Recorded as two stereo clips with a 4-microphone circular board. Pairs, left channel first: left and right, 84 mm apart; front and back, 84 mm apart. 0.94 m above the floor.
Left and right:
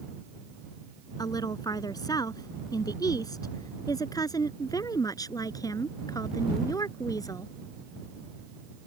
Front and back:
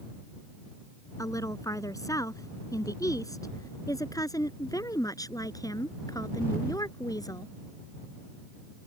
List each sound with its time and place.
1.2 s a woman speaking: 50° left; by 7.5 s 45° left